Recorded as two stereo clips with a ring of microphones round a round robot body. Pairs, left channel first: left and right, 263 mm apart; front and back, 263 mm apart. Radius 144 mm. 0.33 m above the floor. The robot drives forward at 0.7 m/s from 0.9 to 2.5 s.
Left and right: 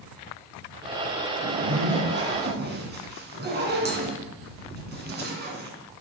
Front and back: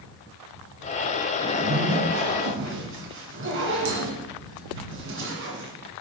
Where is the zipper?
125° right, 1.7 m; by 5.7 s 140° right, 2 m.